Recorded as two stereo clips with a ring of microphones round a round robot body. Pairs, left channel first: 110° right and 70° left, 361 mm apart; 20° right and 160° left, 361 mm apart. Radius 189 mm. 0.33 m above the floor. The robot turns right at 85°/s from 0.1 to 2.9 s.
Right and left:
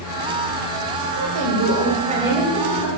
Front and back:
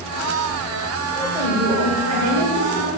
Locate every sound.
1.1 s a woman speaking: 50° left, 2.5 m; by 2.9 s 160° right, 2.5 m